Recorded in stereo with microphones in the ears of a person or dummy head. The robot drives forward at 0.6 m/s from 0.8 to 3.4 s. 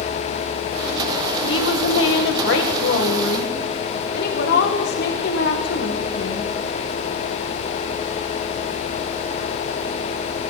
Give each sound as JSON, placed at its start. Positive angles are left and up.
{"t": 1.4, "sound": "a woman speaking", "side_deg": 80, "distance_m": 1.8}